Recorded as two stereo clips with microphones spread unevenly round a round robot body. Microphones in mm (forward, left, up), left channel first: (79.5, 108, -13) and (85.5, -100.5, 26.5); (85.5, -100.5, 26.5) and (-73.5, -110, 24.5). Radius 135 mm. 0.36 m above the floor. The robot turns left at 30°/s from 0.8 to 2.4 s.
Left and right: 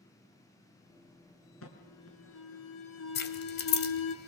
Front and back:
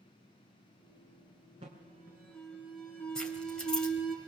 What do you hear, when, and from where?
1.6 s an alarm: 115° left, 3 m; by 4.2 s 90° left, 3 m
3.1 s keys jangling: 90° left, 1.5 m